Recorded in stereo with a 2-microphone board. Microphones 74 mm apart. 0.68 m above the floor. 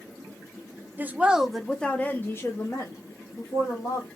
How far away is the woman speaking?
About 0.7 m.